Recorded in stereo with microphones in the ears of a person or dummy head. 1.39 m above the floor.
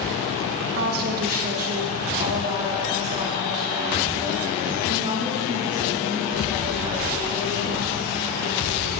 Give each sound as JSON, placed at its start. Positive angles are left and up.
{"t": 0.8, "sound": "a woman speaking", "side_deg": -55, "distance_m": 0.9}